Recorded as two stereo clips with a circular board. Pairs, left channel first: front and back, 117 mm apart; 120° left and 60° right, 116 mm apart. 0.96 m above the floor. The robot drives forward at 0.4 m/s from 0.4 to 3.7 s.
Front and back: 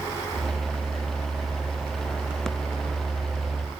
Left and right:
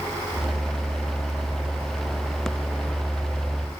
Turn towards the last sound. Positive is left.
No sound to turn to.